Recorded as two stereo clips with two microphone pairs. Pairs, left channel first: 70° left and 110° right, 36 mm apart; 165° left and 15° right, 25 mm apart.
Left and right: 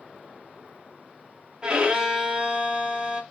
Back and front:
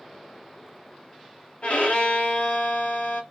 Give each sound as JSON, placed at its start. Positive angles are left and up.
{"t": 1.6, "sound": "a violin", "azimuth_deg": -170, "distance_m": 1.0}